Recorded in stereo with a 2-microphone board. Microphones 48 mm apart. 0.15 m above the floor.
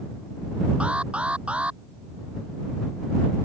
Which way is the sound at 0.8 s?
25° right (ahead or behind).